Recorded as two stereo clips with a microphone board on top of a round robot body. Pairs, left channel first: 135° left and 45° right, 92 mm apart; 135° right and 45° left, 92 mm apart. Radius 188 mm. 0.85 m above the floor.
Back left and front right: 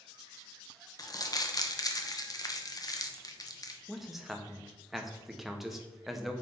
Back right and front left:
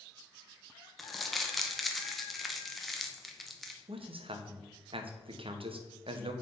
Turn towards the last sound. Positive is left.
turn(degrees=40)